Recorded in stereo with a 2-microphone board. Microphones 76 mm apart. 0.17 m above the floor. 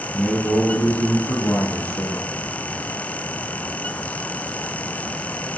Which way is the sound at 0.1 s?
Centre (ahead or behind).